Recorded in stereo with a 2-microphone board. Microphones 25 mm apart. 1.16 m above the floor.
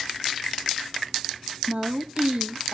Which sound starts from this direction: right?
A woman speaking, at 1.7 s.